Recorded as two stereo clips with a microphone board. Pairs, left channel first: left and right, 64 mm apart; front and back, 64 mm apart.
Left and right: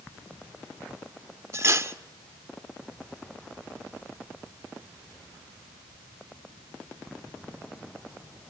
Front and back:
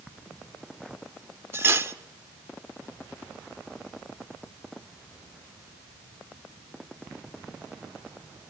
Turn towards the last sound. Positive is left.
turn(degrees=-130)